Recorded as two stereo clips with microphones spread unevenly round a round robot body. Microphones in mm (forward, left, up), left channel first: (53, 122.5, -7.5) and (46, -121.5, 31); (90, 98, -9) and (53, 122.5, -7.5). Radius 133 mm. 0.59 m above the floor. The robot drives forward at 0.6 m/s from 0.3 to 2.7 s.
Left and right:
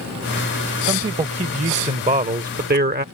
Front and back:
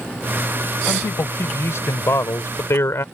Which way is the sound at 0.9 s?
20° right.